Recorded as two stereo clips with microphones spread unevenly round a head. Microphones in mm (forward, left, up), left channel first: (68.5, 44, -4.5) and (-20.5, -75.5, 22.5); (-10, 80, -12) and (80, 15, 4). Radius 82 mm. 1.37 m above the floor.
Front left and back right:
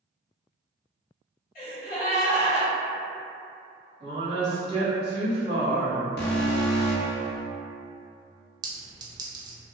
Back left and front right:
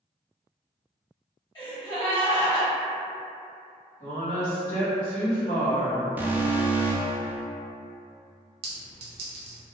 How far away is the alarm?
About 0.5 m.